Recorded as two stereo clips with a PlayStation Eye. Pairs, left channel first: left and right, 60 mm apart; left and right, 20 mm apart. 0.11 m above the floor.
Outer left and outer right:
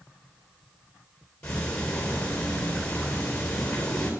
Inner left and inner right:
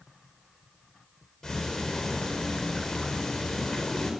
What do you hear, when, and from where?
1.4 s ticking: 20° left (ahead or behind), 5 m